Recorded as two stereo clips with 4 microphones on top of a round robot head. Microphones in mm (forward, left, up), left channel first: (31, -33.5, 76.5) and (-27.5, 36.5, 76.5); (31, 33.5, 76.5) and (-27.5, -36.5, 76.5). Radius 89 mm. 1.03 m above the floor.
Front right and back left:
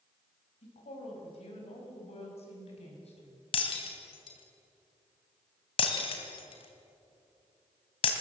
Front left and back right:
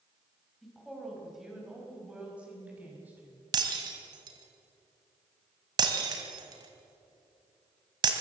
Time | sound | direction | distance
0.6 | a woman speaking | 40° right | 5.5 m
3.5 | breaking glass | 80° right | 2.5 m